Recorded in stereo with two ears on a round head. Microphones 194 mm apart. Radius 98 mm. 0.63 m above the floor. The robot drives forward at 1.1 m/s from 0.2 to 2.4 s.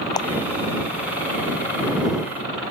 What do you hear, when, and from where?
0.2 s a clap: 20° left (ahead or behind)